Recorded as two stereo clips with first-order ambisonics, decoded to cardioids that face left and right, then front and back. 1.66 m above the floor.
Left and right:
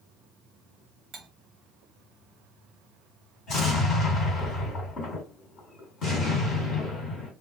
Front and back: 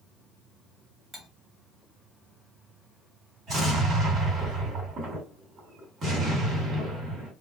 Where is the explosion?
130° left, 2.5 m.